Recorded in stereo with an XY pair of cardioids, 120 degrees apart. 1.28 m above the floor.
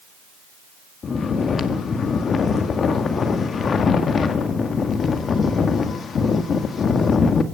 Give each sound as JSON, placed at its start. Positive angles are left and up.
{"t": 1.0, "sound": "snoring", "azimuth_deg": 40, "distance_m": 1.7}